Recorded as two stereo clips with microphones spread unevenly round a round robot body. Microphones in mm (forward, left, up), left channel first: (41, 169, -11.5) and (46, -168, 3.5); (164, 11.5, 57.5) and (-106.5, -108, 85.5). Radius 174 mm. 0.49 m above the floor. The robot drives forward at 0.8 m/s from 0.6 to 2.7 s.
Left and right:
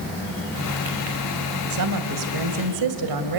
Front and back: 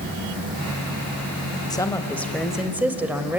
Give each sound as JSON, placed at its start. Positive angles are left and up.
{"t": 1.7, "sound": "a woman speaking", "azimuth_deg": -50, "distance_m": 2.5}